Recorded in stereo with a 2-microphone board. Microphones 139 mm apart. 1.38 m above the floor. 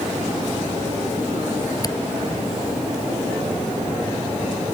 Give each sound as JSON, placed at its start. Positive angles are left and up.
{"t": 1.8, "sound": "a camera shutter", "side_deg": 30}